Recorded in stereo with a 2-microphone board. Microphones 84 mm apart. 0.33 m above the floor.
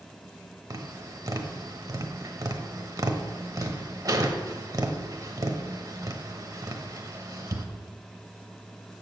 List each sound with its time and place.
0.7 s tapping: 45° right (ahead or behind), 1.0 m